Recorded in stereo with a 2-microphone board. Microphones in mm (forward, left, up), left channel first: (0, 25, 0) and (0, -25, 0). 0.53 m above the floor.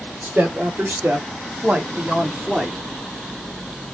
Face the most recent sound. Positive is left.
turn(degrees=0)  # may be behind; listen again after turning